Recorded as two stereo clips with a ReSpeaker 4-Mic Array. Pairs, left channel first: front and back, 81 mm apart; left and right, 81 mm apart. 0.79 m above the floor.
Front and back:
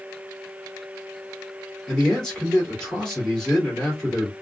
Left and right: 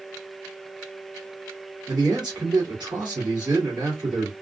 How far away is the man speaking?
About 1.9 m.